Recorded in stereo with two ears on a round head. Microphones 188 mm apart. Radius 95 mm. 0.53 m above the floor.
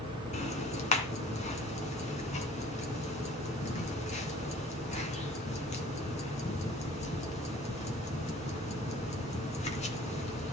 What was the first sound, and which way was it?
Ticking, 35° left (ahead or behind).